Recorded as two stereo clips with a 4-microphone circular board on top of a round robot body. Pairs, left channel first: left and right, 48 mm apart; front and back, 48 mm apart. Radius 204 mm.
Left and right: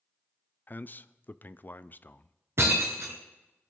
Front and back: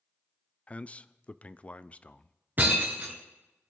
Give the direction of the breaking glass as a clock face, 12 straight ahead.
4 o'clock.